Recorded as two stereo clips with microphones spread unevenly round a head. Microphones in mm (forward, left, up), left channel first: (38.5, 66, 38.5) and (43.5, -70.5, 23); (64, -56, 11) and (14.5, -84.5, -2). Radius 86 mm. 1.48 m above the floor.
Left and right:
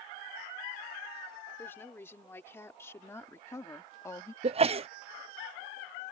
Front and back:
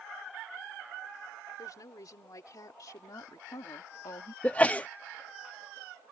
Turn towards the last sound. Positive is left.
turn(degrees=-45)